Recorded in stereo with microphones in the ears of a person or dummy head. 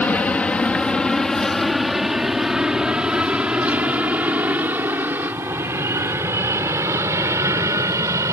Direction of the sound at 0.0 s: 10° left (ahead or behind).